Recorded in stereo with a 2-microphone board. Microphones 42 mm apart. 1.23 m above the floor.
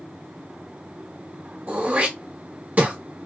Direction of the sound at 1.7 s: 40° right (ahead or behind).